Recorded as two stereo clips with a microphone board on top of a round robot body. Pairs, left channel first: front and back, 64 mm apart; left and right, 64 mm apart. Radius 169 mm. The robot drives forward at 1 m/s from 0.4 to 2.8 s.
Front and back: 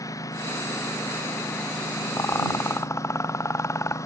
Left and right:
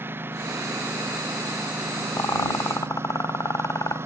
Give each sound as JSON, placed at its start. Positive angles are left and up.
{"t": 0.0, "sound": "a lawn mower", "azimuth_deg": -35}
{"t": 2.2, "sound": "a rattle", "azimuth_deg": 50}